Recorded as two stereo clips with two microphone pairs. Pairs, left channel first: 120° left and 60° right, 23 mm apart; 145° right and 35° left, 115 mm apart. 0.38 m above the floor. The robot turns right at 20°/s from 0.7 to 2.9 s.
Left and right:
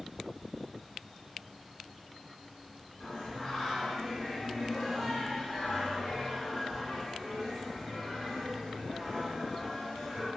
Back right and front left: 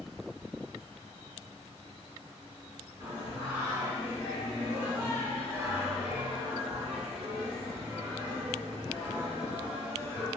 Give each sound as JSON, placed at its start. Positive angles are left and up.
{"t": 3.0, "sound": "singing", "azimuth_deg": 70, "distance_m": 1.6}